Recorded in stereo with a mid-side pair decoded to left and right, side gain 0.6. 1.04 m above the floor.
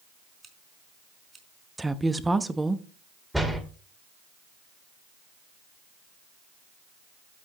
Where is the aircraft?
No aircraft in this recording.